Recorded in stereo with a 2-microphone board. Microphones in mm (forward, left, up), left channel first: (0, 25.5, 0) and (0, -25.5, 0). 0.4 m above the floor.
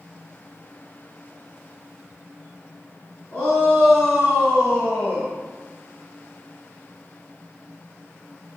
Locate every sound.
3.3 s a shout: 35° left (ahead or behind), 3.5 m; by 5.3 s 55° left (ahead or behind), 1.4 m